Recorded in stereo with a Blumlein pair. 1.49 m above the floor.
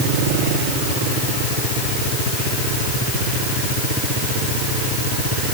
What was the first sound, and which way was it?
Only background noise.